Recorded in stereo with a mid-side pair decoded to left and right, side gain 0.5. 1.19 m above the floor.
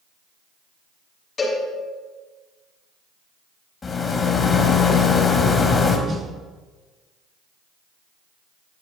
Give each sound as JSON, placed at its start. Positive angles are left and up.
{"t": 1.4, "sound": "a cowbell", "azimuth_deg": 35, "distance_m": 7.0}
{"t": 3.8, "sound": "a rattle", "azimuth_deg": 35, "distance_m": 3.0}
{"t": 6.1, "sound": "a snare drum", "azimuth_deg": -35, "distance_m": 2.0}